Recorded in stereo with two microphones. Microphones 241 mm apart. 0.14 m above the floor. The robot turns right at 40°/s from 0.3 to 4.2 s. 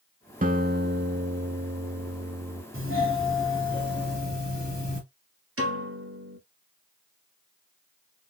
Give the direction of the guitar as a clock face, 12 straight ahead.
4 o'clock.